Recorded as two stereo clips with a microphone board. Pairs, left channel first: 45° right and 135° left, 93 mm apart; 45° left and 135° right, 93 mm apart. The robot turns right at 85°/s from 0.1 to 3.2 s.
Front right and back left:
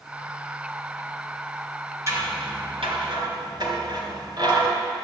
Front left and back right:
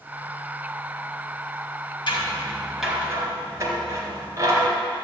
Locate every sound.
2.1 s scissors: 75° left, 3 m; by 4.7 s 170° left, 3 m